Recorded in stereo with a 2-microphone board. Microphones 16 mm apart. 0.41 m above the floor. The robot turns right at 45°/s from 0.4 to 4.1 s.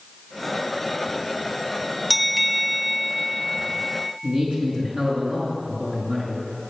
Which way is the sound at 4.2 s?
45° right (ahead or behind).